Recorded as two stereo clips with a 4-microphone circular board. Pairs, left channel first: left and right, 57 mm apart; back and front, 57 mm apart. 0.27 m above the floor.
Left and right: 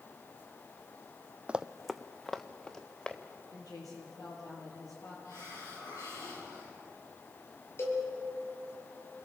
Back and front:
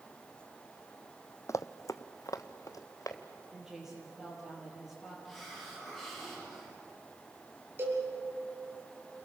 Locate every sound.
1.5 s running footsteps: 160° right, 0.6 m; by 3.2 s 165° left, 3 m
3.5 s a woman speaking: 85° left, 6.5 m
5.2 s a hiss: 95° left, 10 m
7.8 s a cowbell: 45° left, 6.5 m